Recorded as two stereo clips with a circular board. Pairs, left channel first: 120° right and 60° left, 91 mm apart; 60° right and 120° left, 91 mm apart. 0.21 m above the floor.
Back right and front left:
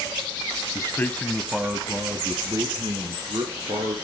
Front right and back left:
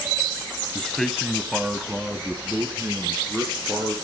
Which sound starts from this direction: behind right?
A man speaking, at 0.8 s.